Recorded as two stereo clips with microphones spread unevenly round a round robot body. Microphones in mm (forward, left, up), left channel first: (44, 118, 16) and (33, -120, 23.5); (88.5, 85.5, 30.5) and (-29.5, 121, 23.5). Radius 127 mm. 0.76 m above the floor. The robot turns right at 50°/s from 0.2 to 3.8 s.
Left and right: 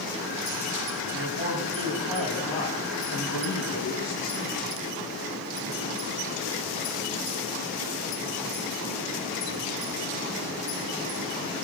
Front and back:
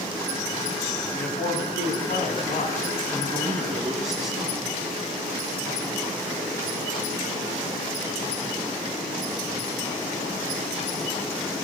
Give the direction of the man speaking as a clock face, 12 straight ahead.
2 o'clock.